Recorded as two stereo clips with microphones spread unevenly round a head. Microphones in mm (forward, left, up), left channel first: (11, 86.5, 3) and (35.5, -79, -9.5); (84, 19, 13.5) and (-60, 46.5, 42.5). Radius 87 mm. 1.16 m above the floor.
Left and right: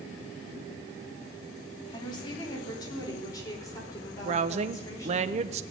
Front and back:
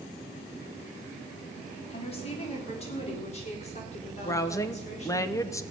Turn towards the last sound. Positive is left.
turn(degrees=-60)